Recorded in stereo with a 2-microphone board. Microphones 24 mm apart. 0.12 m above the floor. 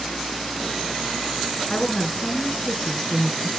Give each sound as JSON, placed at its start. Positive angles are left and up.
{"t": 1.7, "sound": "a woman speaking", "side_deg": 25, "distance_m": 1.4}